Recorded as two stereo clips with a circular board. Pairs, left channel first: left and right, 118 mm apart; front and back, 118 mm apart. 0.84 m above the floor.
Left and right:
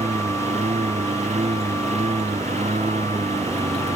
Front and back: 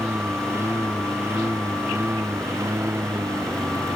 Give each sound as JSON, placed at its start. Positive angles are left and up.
{"t": 0.0, "sound": "a lawn mower", "azimuth_deg": -110}